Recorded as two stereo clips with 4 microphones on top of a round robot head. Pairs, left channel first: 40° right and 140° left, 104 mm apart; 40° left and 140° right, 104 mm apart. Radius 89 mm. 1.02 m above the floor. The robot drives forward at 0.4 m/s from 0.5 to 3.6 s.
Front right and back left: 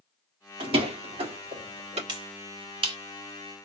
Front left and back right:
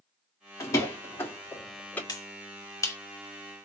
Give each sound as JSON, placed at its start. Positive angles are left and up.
{"t": 0.6, "sound": "a door slam", "azimuth_deg": 105, "distance_m": 2.0}
{"t": 2.1, "sound": "a finger snap", "azimuth_deg": 95, "distance_m": 3.0}